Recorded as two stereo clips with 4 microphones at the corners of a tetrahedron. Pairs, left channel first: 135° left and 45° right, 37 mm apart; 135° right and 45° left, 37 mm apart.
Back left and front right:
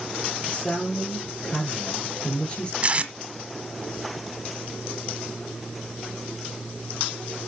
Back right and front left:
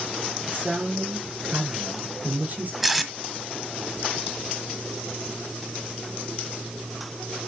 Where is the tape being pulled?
35° right, 1.4 m.